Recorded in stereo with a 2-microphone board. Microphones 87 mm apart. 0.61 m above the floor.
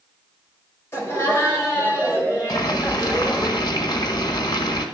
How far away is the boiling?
About 1.4 m.